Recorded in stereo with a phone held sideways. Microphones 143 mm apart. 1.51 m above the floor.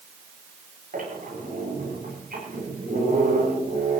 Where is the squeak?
75° right (ahead or behind), 9 m.